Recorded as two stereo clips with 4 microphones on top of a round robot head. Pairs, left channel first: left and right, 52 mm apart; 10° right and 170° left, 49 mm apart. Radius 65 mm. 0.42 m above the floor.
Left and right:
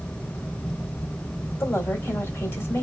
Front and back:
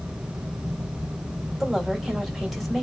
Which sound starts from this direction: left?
A woman speaking, at 1.6 s.